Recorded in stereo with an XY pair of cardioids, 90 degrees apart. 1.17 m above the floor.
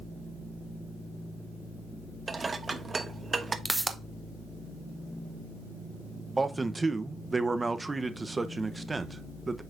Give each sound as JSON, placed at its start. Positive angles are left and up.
{"t": 2.3, "sound": "dishes clattering", "azimuth_deg": -30, "distance_m": 0.9}
{"t": 3.6, "sound": "a pop", "azimuth_deg": -10, "distance_m": 1.0}
{"t": 6.4, "sound": "a man speaking", "azimuth_deg": -20, "distance_m": 0.8}